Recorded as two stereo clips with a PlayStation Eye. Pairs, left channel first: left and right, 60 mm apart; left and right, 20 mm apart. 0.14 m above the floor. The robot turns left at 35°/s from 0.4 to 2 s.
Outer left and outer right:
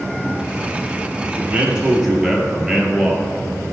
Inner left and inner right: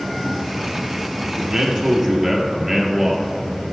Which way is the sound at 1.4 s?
25° right (ahead or behind).